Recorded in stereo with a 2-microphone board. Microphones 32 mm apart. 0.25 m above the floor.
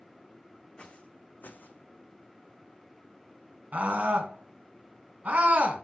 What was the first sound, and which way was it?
Footsteps, 25° left (ahead or behind).